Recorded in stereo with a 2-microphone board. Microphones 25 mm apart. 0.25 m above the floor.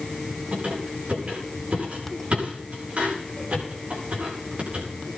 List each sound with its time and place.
0.5 s a squeak: 70° right (ahead or behind), 9 m